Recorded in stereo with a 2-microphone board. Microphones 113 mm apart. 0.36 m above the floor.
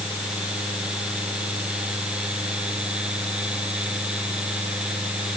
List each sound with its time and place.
Only background noise.